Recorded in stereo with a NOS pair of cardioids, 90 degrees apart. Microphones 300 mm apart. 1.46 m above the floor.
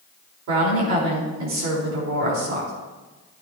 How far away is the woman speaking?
About 4.5 m.